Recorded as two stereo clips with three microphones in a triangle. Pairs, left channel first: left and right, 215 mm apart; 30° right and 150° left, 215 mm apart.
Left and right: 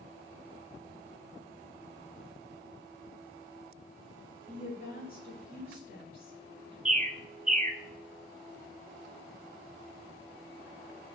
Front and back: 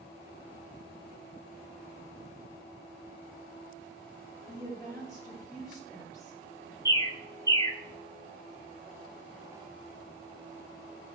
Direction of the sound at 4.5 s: 40° left.